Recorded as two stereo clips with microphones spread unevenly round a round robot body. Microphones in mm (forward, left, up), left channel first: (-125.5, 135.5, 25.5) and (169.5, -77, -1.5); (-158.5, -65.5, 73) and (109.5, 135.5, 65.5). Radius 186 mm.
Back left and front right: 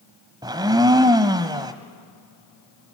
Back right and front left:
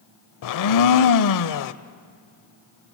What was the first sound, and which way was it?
A blender, 115° right.